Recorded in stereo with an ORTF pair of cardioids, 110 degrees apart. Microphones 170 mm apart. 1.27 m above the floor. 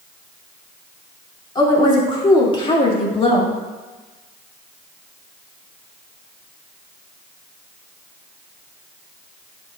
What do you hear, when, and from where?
1.6 s a woman speaking: 25° left, 2.5 m; by 3.6 s 35° left, 1.5 m